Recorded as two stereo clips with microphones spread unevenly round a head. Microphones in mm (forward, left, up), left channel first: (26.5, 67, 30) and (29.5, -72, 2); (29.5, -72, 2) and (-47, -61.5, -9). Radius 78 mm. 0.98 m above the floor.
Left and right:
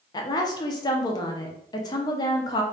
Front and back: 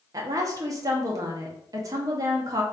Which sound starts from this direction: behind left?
A woman speaking, at 0.1 s.